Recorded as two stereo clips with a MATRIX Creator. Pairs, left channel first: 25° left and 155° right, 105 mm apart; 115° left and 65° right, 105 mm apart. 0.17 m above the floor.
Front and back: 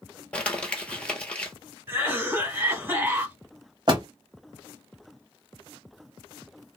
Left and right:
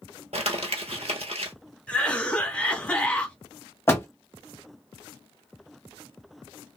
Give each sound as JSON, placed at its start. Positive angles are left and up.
{"t": 0.3, "sound": "crumpling", "azimuth_deg": -55, "distance_m": 1.0}
{"t": 1.9, "sound": "a cough", "azimuth_deg": 175, "distance_m": 1.3}
{"t": 3.9, "sound": "a door slam", "azimuth_deg": 175, "distance_m": 1.3}